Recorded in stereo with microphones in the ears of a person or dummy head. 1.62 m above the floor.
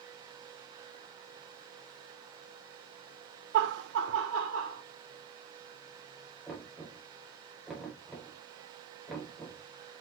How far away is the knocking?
About 4 m.